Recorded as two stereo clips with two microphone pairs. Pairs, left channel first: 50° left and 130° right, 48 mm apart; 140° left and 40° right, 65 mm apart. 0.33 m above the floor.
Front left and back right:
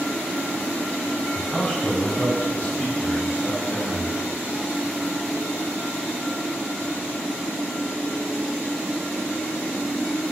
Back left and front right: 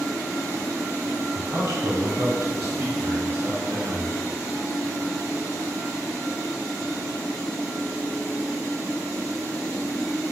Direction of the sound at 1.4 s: 20° right.